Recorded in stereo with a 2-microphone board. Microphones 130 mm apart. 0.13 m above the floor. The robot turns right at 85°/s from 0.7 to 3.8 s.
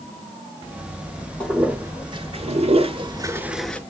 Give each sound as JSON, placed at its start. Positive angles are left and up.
{"t": 1.4, "sound": "a toilet flushing", "side_deg": 10, "distance_m": 0.6}